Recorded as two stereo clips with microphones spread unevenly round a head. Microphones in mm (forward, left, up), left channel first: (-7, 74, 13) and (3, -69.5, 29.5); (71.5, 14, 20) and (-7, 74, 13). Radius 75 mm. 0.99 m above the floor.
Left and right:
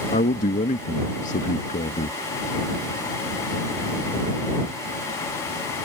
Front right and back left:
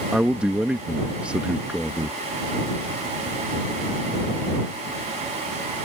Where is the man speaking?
65° left.